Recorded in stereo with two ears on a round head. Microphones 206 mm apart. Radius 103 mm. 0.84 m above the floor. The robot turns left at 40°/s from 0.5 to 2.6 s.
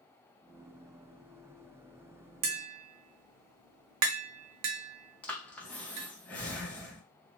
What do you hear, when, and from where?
2.4 s tapping: 75° right (ahead or behind), 0.8 m; by 6.1 s 70° right (ahead or behind), 0.8 m
5.2 s breathing: 5° left (ahead or behind), 0.8 m